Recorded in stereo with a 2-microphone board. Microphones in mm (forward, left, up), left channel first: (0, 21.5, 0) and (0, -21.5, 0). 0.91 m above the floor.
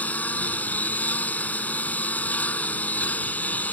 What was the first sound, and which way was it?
A lawn mower, 40° left (ahead or behind).